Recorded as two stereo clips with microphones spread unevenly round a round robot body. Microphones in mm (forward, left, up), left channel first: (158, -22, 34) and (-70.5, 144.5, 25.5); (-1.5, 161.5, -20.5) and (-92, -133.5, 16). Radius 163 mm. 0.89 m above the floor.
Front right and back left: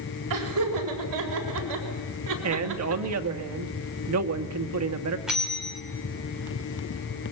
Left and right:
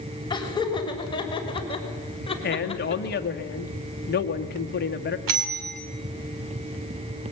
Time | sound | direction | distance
0.3 | laughter | 150° left | 5.5 m
2.4 | a man speaking | 125° left | 1.8 m
5.3 | a bell | 130° right | 3 m